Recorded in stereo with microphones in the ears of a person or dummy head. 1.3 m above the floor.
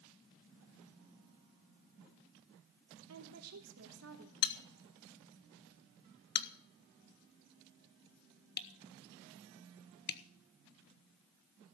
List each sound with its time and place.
3.1 s a woman speaking: 80° right, 3 m
4.4 s a bell: 50° left (ahead or behind), 1.0 m